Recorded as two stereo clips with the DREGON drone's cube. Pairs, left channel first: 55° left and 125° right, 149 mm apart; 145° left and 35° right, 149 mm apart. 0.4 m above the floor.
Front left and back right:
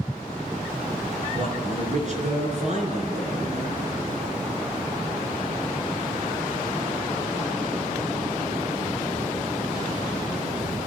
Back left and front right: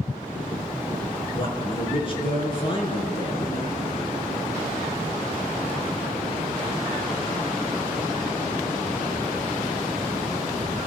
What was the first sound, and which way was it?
A man speaking, 160° right.